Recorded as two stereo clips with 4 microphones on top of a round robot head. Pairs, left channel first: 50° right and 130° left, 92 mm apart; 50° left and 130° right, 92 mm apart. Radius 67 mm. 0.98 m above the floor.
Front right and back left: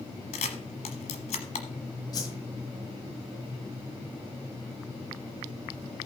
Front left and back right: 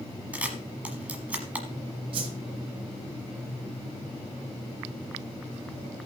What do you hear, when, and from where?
0.3 s a camera shutter: 60° right, 1.1 m
2.1 s a whoosh: 100° right, 1.5 m